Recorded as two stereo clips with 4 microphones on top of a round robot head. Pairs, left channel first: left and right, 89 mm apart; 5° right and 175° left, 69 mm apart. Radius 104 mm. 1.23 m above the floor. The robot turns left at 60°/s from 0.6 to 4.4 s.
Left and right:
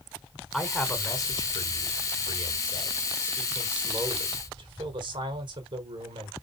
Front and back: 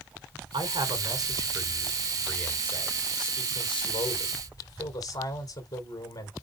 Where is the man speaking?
Straight behind, 4 m; by 6.3 s 45° right, 4 m.